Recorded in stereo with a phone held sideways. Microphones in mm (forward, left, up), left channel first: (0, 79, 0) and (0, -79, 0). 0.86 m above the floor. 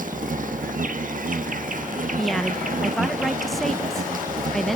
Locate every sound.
0.0 s an insect: 65° right (ahead or behind), 1.2 m
2.2 s a woman speaking: centre (ahead or behind), 0.5 m